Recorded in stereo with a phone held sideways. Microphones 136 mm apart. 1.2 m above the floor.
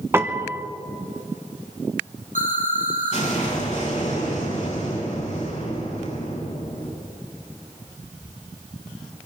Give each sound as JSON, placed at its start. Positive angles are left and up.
{"t": 0.1, "sound": "a piano", "side_deg": -20, "distance_m": 1.1}
{"t": 2.4, "sound": "an explosion", "side_deg": 60, "distance_m": 8.5}